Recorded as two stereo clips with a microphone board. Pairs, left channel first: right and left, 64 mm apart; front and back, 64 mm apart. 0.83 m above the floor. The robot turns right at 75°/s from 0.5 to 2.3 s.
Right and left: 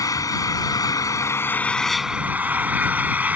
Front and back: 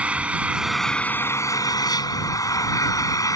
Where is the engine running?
110° right; by 3.4 s 25° left.